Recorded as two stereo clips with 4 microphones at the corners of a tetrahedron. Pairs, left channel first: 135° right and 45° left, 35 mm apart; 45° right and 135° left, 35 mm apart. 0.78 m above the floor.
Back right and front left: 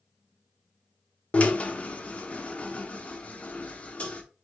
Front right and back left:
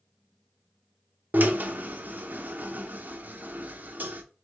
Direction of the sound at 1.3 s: 175° left.